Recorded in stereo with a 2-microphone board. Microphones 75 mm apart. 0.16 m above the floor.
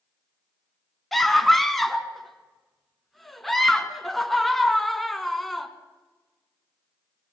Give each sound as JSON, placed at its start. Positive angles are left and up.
{"t": 1.1, "sound": "a scream", "side_deg": 0, "distance_m": 1.8}